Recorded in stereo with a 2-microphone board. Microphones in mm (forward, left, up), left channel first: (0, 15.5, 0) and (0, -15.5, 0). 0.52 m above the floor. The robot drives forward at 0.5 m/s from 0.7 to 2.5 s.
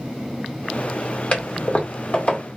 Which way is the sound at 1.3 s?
45° left (ahead or behind).